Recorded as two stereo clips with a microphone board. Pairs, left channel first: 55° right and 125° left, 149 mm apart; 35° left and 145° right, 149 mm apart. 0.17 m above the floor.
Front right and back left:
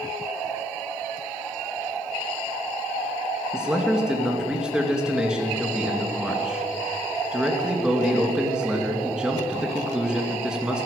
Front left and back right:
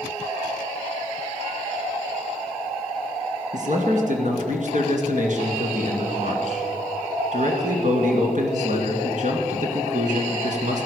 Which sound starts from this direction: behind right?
A man speaking, at 3.5 s.